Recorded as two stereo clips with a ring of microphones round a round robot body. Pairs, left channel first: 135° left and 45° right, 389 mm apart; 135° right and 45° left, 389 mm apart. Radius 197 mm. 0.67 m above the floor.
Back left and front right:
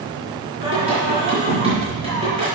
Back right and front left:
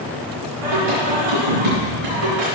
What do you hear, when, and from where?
0.6 s singing: 30° left, 4.5 m